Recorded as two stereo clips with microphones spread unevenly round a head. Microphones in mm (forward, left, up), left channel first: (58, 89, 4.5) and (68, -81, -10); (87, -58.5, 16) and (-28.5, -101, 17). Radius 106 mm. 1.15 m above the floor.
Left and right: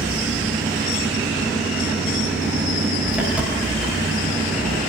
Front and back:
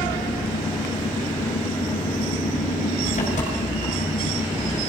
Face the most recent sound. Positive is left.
turn(degrees=-5)